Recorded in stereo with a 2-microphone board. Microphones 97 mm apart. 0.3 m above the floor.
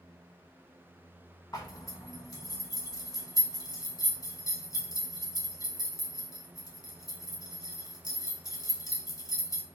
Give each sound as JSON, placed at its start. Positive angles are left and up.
{"t": 1.5, "sound": "a zipper", "side_deg": 40, "distance_m": 0.8}